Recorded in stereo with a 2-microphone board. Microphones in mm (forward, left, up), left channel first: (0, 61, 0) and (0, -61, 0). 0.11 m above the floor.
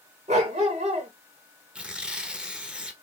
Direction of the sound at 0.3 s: 70° right (ahead or behind).